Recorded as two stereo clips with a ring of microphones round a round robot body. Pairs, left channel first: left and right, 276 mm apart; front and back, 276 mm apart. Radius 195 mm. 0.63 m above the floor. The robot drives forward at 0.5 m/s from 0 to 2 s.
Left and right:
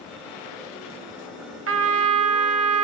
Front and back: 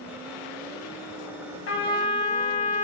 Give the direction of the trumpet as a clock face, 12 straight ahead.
2 o'clock.